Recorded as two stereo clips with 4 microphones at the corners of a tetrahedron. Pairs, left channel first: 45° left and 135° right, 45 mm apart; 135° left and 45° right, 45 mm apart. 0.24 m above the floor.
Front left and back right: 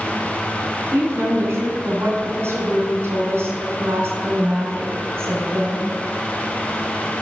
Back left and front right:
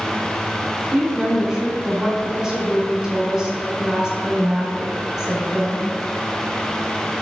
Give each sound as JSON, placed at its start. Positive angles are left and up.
{"t": 0.9, "sound": "a woman speaking", "azimuth_deg": -120, "distance_m": 2.5}